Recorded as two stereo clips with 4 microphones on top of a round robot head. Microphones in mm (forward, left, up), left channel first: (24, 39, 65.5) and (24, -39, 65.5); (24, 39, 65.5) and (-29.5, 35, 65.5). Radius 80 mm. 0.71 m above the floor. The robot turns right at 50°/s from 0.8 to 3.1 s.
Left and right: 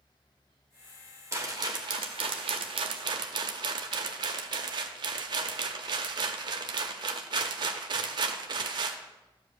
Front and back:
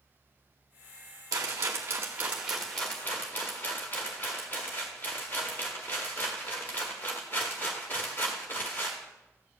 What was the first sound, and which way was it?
A rattle, 150° right.